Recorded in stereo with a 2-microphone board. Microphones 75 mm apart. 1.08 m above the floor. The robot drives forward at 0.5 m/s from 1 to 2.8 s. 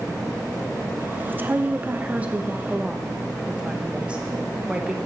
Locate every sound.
1.3 s a woman speaking: 30° right (ahead or behind), 0.7 m; by 5.0 s 15° right (ahead or behind), 1.1 m